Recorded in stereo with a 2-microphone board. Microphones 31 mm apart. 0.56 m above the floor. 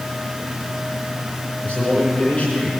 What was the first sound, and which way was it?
A man speaking, 45° left (ahead or behind).